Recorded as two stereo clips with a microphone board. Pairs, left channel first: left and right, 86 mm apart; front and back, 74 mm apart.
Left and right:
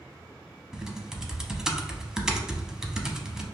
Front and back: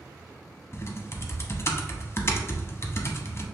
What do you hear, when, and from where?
0.7 s typing on a keyboard: 10° right, 0.5 m